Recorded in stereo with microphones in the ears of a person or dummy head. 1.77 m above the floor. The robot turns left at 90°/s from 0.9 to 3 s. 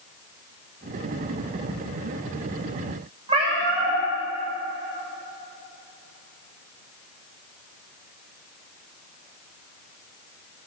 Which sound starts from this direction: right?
A cat meowing, at 3.3 s.